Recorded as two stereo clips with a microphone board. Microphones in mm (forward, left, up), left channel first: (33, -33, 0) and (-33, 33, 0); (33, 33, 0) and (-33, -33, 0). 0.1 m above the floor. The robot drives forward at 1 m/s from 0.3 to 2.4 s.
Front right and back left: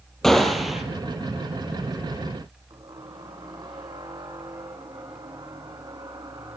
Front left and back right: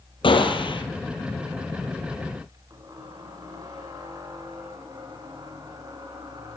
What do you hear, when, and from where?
0.2 s a gunshot: 40° left, 3 m; by 0.8 s 50° left, 2.5 m
2.7 s a squeak: 175° left, 4 m